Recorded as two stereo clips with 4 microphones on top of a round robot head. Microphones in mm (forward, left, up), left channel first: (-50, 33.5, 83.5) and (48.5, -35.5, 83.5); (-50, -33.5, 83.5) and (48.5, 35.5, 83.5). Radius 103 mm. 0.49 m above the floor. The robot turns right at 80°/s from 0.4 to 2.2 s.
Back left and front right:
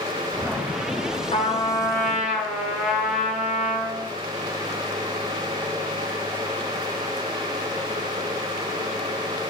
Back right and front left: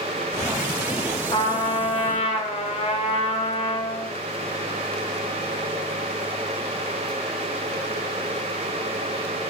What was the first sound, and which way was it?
A trumpet, 170° left.